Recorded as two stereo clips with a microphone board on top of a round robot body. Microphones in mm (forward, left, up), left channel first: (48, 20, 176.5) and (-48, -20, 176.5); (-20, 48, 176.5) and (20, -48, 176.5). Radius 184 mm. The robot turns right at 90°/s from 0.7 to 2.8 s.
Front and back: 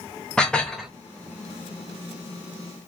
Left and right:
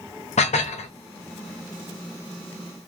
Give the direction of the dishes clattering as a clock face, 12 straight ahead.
9 o'clock.